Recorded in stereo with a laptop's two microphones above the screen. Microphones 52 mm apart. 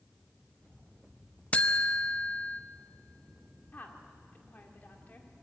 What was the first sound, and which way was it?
A buzzer, 30° left (ahead or behind).